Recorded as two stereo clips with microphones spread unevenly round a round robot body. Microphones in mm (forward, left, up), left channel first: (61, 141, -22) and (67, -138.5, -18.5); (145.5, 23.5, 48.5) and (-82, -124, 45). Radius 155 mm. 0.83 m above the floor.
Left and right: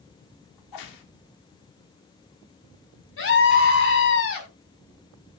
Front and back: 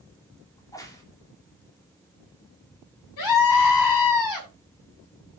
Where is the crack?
110° left, 1.9 m.